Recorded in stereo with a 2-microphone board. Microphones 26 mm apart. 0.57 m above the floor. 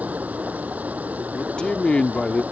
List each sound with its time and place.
0.0 s running water: 85° right
1.3 s a man speaking: 40° left (ahead or behind)